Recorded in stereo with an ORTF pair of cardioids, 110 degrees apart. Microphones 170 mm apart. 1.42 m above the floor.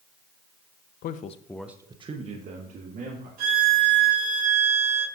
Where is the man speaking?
65° left, 0.9 m; by 3.3 s 55° right, 2.5 m.